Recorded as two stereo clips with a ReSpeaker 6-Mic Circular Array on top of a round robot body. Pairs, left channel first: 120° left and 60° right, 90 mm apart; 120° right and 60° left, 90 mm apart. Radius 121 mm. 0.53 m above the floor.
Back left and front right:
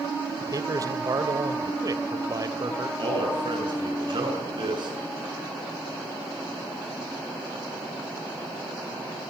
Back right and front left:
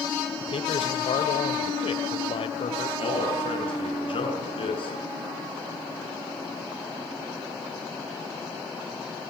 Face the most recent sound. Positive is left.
turn(degrees=-95)